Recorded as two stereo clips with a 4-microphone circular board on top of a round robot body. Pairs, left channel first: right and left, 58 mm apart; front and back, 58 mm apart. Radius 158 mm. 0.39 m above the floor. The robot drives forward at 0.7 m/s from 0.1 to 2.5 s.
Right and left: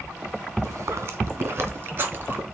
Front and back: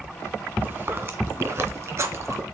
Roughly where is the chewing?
Behind left.